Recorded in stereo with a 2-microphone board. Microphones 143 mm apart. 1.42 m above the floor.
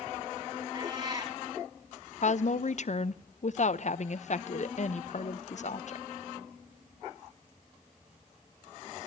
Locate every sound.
0.7 s a cat meowing: 30° right (ahead or behind), 6.5 m
2.2 s a woman speaking: 55° left (ahead or behind), 0.8 m